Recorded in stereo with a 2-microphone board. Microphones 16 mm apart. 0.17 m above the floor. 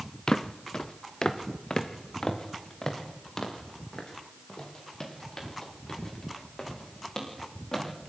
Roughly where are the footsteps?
Left.